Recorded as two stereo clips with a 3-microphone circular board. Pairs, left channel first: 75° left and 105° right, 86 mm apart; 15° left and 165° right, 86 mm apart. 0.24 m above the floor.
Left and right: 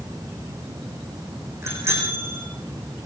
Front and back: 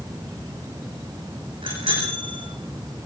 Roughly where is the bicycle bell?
Behind.